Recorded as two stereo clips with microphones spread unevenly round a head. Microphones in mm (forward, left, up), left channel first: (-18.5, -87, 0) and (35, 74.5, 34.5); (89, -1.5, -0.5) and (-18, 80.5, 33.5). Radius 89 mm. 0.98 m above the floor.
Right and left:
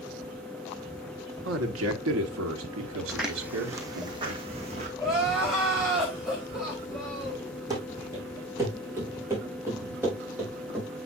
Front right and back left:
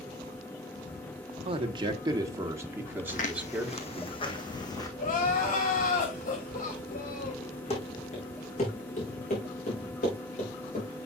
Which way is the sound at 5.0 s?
15° right.